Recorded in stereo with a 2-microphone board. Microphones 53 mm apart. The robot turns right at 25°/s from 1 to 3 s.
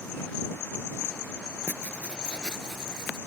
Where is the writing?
145° left; by 3.2 s straight behind.